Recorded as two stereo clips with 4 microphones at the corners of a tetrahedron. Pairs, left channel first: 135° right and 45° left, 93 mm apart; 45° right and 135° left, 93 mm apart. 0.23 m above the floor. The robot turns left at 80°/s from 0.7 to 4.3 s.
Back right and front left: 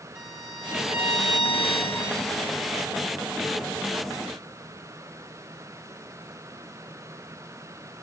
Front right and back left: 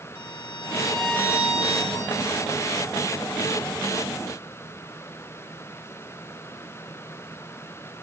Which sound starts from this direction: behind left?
A violin, at 0.1 s.